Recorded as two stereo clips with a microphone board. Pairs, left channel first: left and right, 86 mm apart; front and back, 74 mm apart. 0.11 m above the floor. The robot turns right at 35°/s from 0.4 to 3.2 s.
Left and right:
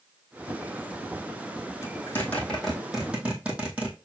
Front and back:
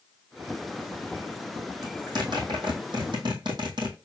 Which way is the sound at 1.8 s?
145° left.